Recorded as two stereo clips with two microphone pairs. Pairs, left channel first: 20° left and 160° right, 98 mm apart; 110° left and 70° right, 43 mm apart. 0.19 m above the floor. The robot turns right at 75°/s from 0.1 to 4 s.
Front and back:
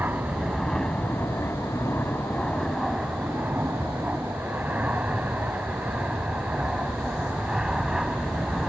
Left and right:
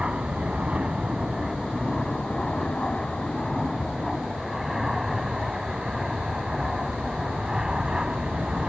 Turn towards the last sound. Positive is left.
turn(degrees=-85)